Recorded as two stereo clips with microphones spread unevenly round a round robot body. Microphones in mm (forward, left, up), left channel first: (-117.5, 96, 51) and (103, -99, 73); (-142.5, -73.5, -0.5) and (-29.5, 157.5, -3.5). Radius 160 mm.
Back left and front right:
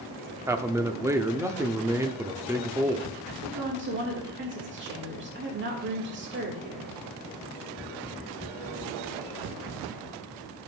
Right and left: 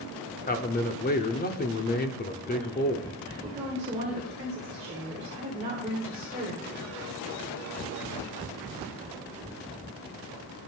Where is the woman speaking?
5° left, 1.9 m.